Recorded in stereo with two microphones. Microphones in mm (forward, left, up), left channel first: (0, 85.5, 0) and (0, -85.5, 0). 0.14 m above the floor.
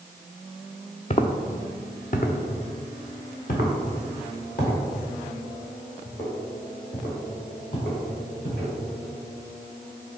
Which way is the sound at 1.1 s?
40° left (ahead or behind).